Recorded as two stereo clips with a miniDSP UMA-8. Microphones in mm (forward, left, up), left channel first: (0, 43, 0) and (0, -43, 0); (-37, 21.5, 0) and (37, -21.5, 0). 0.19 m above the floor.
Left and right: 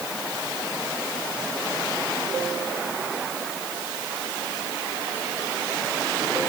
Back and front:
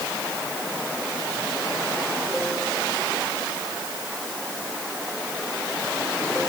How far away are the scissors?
I don't hear scissors.